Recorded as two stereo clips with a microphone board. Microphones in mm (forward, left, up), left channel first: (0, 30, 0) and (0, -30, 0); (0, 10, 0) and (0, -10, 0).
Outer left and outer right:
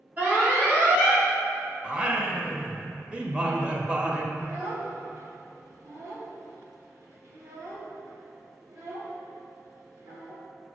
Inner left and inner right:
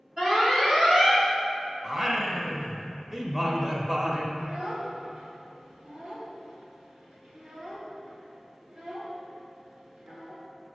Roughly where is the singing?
Right.